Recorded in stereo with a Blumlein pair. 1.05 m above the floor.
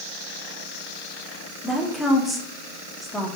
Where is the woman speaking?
5° left, 1.9 m.